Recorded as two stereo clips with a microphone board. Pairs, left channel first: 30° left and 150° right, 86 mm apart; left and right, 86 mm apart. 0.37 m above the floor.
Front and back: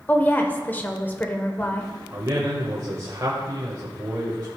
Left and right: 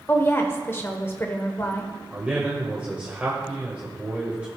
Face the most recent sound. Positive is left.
turn(degrees=-155)